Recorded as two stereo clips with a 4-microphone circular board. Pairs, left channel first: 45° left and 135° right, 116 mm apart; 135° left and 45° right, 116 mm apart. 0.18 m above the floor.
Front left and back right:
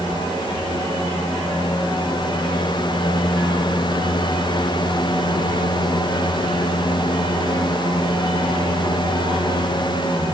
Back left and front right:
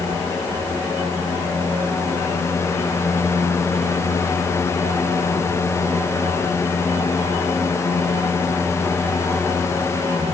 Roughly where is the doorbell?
I don't hear a doorbell.